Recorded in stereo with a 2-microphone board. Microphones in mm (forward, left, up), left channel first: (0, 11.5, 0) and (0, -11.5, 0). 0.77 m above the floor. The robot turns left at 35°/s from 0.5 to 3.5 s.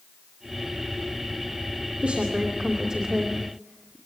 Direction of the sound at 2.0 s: 55° right (ahead or behind).